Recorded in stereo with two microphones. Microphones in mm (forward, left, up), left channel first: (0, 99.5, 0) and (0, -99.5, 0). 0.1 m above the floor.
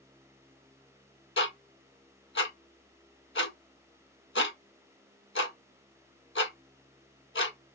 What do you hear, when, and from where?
1.4 s ticking: 70° left (ahead or behind), 0.6 m